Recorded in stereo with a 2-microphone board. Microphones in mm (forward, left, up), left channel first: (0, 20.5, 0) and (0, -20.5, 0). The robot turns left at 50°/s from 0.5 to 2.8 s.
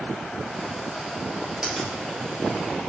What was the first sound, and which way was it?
A finger snap, 20° right (ahead or behind).